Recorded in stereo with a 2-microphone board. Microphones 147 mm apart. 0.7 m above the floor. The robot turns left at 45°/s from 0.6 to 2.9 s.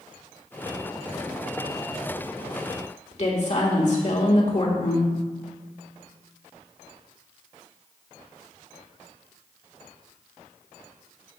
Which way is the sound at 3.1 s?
50° left (ahead or behind).